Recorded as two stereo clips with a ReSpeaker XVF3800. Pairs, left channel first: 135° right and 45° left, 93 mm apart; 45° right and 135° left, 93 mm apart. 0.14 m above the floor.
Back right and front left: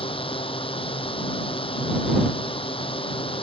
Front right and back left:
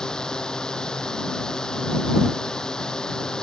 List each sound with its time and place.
0.0 s a drone: 125° right